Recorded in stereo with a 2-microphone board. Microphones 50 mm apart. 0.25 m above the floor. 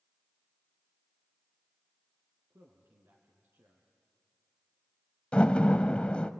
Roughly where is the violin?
No violin in this recording.